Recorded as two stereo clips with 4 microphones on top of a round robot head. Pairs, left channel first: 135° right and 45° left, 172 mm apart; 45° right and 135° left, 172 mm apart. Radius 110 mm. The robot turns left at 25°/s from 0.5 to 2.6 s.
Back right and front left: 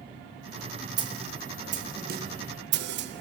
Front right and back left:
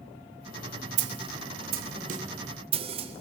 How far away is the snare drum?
About 0.8 m.